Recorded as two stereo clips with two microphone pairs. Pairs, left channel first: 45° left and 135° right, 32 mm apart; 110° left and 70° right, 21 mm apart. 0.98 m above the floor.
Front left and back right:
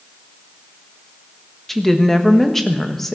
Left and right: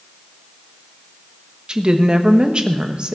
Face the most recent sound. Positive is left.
turn(degrees=-35)